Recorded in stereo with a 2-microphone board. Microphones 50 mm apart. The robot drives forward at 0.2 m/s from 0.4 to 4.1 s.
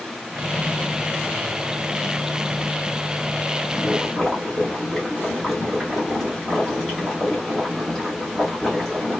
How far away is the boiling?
About 2 m.